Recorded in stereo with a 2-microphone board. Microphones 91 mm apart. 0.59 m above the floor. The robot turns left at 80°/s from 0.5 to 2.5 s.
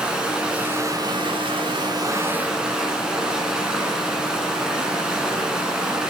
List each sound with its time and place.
0.0 s running water: 10° right, 1.2 m; by 6.1 s 170° right, 1.2 m